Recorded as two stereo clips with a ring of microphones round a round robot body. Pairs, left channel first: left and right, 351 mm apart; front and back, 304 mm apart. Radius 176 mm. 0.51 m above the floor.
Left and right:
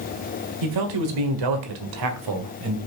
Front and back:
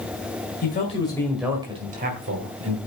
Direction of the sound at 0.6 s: 65° right.